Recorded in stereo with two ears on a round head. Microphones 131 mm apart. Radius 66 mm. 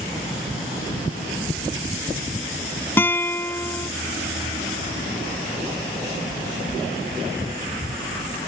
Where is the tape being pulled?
No tape being pulled in this recording.